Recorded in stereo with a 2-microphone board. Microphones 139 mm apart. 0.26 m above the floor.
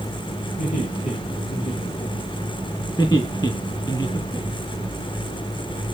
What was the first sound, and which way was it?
Laughter, 75° left (ahead or behind).